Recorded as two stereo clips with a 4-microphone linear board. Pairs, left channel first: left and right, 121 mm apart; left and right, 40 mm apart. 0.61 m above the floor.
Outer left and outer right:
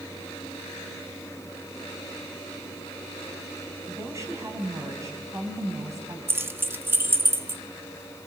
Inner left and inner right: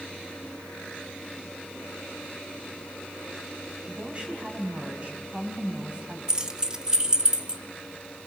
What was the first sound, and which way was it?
A woman speaking, 25° right (ahead or behind).